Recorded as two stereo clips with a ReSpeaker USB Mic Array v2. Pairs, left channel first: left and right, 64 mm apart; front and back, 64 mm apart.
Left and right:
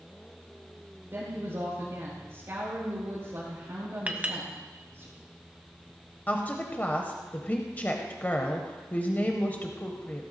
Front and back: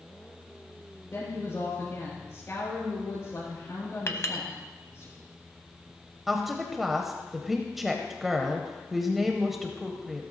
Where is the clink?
25° right, 1.0 m.